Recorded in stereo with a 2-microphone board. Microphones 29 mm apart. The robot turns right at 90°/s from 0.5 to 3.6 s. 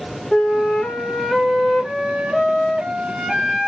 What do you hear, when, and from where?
0.3 s a flute: 65° left, 1.1 m; by 3.7 s 15° right, 1.1 m